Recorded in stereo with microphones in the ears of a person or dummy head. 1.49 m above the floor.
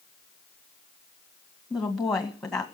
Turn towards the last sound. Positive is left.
turn(degrees=5)  # may be behind; listen again after turning